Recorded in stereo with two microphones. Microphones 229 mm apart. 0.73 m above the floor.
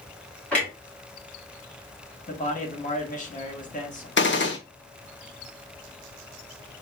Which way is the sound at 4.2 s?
55° left (ahead or behind).